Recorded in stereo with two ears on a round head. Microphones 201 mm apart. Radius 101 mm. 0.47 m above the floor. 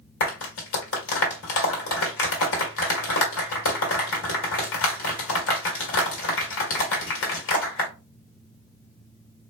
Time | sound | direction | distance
0.2 | a clap | 65° left (ahead or behind) | 2 m